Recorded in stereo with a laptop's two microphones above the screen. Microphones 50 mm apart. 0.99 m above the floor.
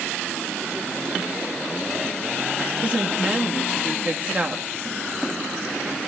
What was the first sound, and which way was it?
A woman speaking, 30° right (ahead or behind).